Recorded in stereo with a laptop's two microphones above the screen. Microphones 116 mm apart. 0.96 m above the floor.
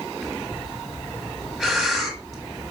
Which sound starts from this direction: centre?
Breathing, at 0.2 s.